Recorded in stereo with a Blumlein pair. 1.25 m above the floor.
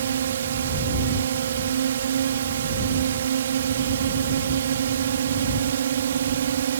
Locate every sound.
0.0 s a drone: 65° right